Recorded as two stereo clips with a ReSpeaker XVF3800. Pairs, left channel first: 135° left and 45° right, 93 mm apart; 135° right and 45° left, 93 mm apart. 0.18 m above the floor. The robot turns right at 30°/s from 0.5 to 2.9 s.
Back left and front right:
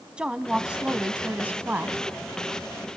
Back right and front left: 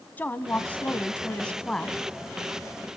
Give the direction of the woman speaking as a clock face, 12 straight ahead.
4 o'clock.